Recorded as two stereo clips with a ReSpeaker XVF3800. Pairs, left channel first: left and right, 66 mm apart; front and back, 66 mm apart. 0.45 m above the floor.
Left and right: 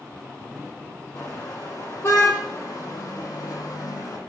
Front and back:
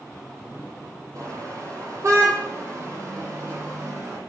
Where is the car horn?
145° left, 8.5 m; by 4.2 s 125° left, 9.5 m.